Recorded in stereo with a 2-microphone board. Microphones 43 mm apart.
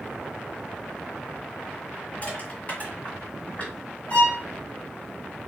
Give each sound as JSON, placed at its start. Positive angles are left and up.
{"t": 2.2, "sound": "crushing", "side_deg": 35, "distance_m": 2.0}
{"t": 4.1, "sound": "a violin", "side_deg": 40, "distance_m": 1.7}